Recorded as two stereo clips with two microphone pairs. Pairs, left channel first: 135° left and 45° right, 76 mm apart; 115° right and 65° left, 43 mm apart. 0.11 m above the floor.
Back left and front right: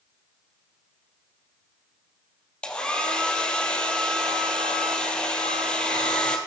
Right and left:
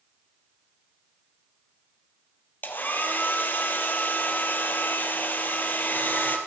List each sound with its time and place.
2.6 s a hair dryer: 150° right, 2 m